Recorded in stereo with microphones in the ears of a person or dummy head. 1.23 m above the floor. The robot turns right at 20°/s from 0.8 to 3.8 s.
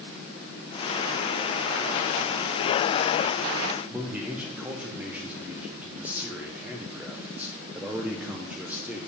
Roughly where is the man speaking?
Centre.